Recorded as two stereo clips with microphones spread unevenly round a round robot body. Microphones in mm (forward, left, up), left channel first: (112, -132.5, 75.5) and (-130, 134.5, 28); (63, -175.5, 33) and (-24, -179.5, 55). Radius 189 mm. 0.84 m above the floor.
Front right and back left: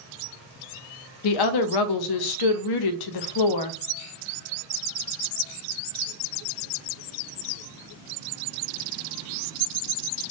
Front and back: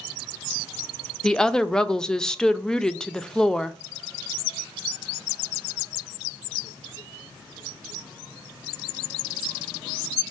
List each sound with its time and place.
1.2 s a woman speaking: 75° right, 0.6 m